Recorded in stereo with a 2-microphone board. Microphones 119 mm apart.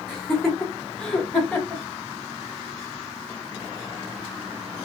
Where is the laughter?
Centre (ahead or behind), 1.0 m; by 1.8 s 10° left (ahead or behind), 1.6 m.